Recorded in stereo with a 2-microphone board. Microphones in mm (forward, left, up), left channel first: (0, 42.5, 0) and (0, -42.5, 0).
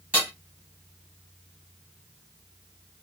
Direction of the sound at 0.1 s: 20° right (ahead or behind).